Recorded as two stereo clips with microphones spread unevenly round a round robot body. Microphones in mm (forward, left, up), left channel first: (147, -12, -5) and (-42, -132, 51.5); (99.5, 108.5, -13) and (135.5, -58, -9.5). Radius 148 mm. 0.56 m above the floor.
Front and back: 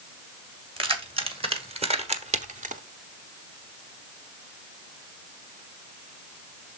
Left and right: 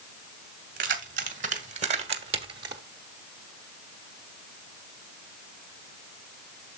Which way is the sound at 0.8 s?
80° right.